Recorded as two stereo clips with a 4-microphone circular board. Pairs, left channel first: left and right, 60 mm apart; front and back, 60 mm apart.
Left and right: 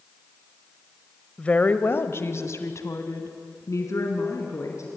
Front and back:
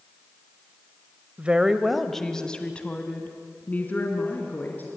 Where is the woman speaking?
140° left, 1.2 m; by 4.9 s 55° left, 4.5 m.